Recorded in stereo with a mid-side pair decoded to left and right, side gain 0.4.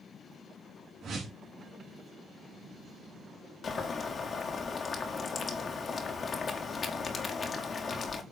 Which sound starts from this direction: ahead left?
Boiling, at 3.6 s.